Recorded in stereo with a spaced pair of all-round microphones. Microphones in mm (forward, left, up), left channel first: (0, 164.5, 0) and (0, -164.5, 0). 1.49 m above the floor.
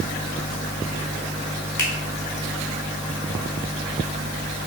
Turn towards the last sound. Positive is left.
turn(degrees=65)  # may be behind; listen again after turning